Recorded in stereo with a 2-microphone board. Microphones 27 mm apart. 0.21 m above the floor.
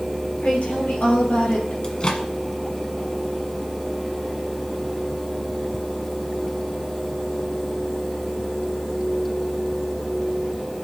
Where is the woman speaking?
70° left (ahead or behind), 5 m.